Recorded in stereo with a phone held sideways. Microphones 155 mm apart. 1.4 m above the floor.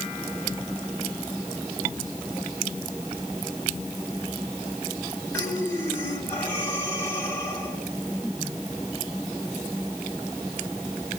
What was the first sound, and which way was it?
Breathing, 10° left (ahead or behind).